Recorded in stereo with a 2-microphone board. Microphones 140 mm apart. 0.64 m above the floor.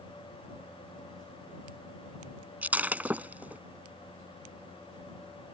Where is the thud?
I don't hear a thud.